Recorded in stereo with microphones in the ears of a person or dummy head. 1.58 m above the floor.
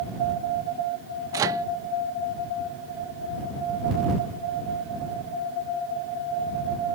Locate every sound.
1.3 s a microwave: 20° right (ahead or behind)